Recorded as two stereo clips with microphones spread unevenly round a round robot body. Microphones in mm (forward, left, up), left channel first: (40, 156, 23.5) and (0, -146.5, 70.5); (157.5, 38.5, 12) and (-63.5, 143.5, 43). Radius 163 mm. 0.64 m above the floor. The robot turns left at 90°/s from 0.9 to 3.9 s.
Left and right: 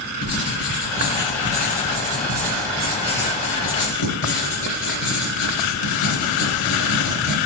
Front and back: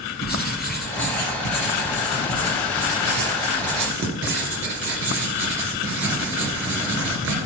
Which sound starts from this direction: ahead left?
Writing, at 0.2 s.